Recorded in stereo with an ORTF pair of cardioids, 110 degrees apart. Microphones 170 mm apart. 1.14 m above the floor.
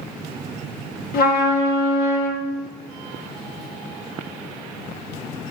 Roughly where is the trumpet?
Ahead left.